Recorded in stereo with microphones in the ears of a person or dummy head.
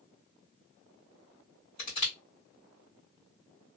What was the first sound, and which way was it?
Crushing, 45° left (ahead or behind).